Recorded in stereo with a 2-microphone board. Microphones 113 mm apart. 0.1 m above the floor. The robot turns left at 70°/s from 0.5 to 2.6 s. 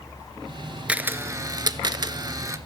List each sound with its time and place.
0.9 s a camera shutter: 15° right, 0.5 m; by 2.6 s 135° right, 0.5 m